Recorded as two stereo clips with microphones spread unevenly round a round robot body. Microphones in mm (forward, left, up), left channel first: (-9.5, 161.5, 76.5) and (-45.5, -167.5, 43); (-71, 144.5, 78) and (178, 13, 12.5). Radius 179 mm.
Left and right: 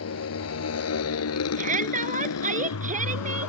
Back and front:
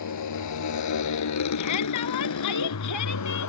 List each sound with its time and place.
0.0 s a motorcycle: 130° left; by 3.5 s 125° left
1.6 s a shout: 165° right